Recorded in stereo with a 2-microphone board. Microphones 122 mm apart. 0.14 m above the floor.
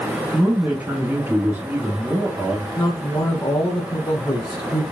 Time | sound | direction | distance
0.3 | a man speaking | 20° right (ahead or behind) | 1.2 m
2.8 | a man speaking | 35° left (ahead or behind) | 1.4 m